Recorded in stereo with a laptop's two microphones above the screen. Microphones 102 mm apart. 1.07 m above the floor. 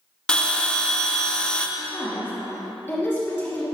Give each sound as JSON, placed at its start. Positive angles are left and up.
{"t": 0.3, "sound": "a bell", "side_deg": 10, "distance_m": 0.6}
{"t": 1.8, "sound": "a woman speaking", "side_deg": 20, "distance_m": 1.3}